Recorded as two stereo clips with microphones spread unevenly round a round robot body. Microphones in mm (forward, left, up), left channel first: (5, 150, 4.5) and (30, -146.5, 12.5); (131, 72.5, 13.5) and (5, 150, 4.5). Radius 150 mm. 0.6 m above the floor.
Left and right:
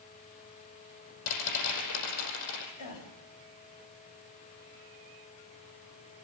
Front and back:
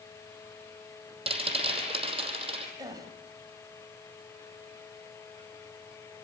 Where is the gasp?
85° left, 4 m.